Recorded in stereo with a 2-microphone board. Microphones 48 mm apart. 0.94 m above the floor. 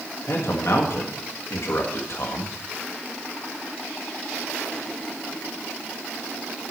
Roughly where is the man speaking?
Left.